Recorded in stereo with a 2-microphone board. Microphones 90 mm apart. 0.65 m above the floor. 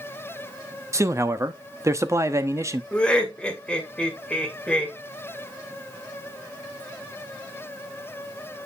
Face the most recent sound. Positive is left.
turn(degrees=10)  # may be behind; listen again after turning